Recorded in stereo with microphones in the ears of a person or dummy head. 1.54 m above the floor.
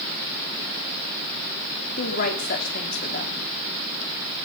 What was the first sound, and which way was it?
A woman speaking, 50° left (ahead or behind).